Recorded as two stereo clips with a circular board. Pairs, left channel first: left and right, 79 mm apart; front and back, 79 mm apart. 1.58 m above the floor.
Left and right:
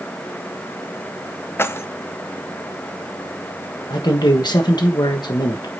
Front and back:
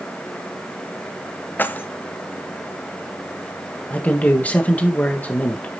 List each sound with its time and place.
1.6 s keys jangling: 50° left, 0.5 m
3.9 s a man speaking: 70° left, 1.4 m